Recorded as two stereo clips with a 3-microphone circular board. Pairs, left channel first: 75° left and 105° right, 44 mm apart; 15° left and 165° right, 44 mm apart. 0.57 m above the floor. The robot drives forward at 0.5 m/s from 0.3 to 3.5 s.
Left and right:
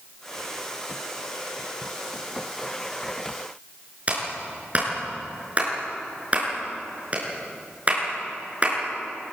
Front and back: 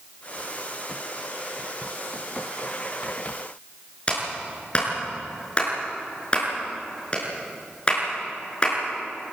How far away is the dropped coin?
I don't hear a dropped coin.